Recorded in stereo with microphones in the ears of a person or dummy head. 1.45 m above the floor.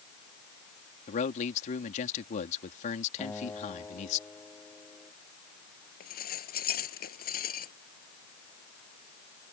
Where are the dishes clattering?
50° left (ahead or behind).